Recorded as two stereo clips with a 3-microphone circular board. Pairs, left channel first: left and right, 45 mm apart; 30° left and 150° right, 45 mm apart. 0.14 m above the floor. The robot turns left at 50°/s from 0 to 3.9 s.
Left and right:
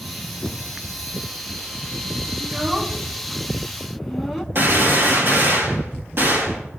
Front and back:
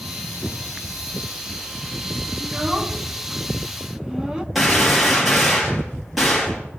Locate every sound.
2.4 s a child speaking: 105° right, 0.6 m; by 4.5 s straight behind, 0.6 m
4.5 s a gunshot: 60° right, 3 m